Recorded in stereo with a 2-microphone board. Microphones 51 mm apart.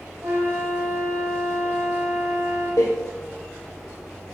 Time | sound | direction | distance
0.2 | a flute | 65° right (ahead or behind) | 5 m
2.8 | a door slam | 75° left (ahead or behind) | 2.5 m